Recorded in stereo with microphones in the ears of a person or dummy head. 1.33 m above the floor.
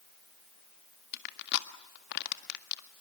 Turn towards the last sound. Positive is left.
turn(degrees=60)  # may be behind; listen again after turning